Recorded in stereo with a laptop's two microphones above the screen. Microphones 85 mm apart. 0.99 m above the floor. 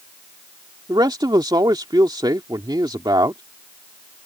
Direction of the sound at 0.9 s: 55° right (ahead or behind).